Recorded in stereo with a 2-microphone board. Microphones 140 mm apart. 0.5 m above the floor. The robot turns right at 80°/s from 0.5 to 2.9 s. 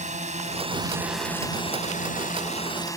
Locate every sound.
0.0 s a drone: 60° right (ahead or behind); by 3.0 s 20° left (ahead or behind)